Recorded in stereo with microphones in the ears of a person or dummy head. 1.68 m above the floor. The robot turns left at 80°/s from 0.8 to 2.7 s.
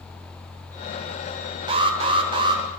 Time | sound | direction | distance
1.7 | an alarm | 20° right (ahead or behind) | 0.8 m